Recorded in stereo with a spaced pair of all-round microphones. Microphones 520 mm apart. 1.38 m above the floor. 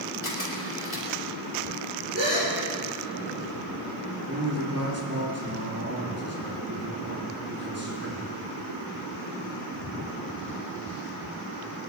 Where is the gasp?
30° right (ahead or behind), 6 m.